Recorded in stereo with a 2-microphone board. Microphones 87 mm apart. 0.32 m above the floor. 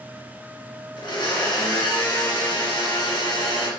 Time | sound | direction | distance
1.0 | a blender | 75° left (ahead or behind) | 2.5 m